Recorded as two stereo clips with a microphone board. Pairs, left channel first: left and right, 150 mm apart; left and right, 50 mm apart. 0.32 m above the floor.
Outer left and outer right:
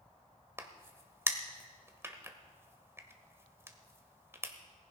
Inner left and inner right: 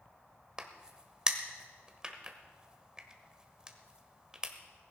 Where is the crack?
20° right (ahead or behind), 1.3 m.